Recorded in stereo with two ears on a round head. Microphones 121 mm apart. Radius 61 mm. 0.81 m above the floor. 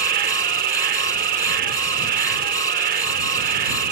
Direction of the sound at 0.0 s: 65° right (ahead or behind).